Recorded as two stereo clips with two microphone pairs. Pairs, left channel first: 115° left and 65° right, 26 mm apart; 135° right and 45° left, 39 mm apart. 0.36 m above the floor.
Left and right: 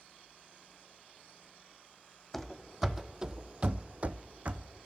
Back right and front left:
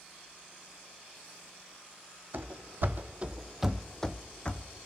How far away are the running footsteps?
About 0.8 m.